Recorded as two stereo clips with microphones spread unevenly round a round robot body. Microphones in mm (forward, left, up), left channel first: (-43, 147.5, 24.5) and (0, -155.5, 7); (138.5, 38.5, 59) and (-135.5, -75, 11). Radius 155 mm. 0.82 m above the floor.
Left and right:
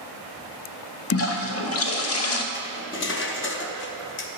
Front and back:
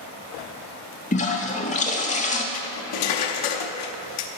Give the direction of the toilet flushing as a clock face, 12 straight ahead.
9 o'clock.